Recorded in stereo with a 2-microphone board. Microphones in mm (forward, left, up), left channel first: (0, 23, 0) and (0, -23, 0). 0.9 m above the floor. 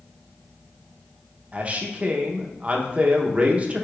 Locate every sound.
1.5 s a man speaking: 30° right (ahead or behind), 0.6 m